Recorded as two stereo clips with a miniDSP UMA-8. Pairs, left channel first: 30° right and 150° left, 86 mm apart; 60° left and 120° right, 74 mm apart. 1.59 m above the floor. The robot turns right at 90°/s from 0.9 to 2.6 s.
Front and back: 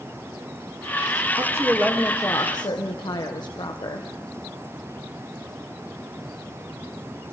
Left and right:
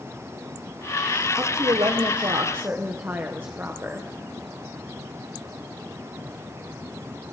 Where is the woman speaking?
175° right, 1.3 m; by 4.1 s 60° right, 1.3 m.